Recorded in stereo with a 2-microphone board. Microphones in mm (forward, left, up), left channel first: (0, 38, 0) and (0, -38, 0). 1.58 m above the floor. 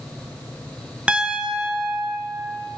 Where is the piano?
15° right (ahead or behind), 1.0 m.